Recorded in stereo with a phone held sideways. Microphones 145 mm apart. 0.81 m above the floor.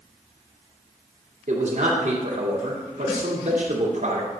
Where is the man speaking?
60° right (ahead or behind), 2 m.